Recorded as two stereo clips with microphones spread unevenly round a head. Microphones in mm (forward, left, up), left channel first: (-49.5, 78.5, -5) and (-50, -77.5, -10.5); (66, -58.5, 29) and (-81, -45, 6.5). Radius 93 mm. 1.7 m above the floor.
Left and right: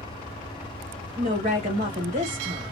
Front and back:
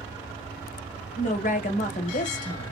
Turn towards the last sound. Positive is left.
turn(degrees=-35)